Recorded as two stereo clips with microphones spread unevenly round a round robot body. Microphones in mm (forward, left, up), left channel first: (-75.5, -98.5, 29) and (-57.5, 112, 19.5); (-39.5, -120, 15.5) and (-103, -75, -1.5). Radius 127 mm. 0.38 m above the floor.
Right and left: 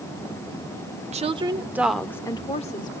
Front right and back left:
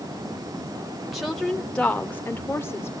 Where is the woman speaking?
75° left, 1.1 m; by 2.9 s 90° right, 1.1 m.